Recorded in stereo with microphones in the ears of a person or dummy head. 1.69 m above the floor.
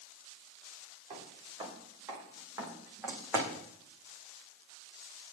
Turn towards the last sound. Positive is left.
turn(degrees=-5)  # may be behind; listen again after turning